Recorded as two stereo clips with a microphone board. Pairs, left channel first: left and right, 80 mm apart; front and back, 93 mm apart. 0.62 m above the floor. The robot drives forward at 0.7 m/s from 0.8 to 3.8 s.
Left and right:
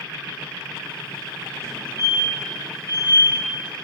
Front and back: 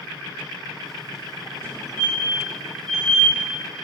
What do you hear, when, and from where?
1.6 s a fire alarm: 55° right, 3.5 m; by 3.4 s 80° right, 3 m